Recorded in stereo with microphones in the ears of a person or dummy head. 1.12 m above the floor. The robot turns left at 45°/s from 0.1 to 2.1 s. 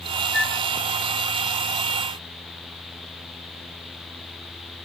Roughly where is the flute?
Centre.